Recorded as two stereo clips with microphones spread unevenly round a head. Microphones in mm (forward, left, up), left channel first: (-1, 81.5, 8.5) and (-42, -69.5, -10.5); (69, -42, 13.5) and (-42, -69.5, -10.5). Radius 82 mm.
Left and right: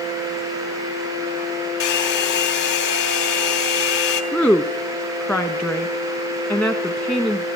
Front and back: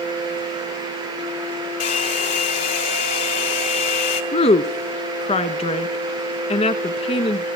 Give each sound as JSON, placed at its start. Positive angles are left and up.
{"t": 1.8, "sound": "a hair dryer", "azimuth_deg": 50, "distance_m": 3.0}
{"t": 4.3, "sound": "a woman speaking", "azimuth_deg": -10, "distance_m": 1.1}